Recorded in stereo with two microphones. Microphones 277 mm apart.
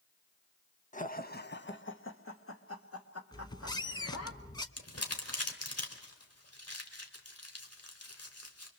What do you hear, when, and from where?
0.9 s laughter: 25° left (ahead or behind), 1.1 m; by 4.3 s 60° left (ahead or behind), 3 m
3.3 s a squeak: 15° left (ahead or behind), 0.9 m
4.8 s crumpling: 60° left (ahead or behind), 2.5 m